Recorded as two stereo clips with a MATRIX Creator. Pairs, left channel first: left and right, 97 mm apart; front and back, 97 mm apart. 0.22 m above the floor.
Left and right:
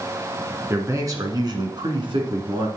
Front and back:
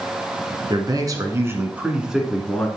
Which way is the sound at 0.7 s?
150° right.